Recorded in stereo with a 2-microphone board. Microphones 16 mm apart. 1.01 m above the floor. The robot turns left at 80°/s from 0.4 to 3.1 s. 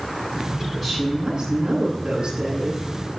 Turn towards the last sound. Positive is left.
turn(degrees=-175)